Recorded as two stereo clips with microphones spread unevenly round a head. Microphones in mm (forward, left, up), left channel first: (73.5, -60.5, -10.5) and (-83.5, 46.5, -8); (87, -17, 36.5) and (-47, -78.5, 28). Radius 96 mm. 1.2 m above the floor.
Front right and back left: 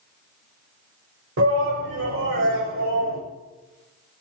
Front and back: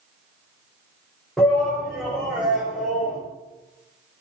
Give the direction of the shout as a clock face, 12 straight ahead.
8 o'clock.